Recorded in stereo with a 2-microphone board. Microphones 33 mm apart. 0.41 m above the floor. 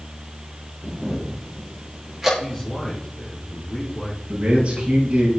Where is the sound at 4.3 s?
35° right (ahead or behind), 6 m.